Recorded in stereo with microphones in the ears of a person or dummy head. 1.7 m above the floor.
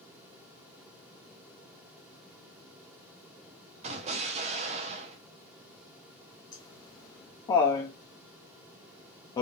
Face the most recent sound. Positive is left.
turn(degrees=20)  # may be behind; listen again after turning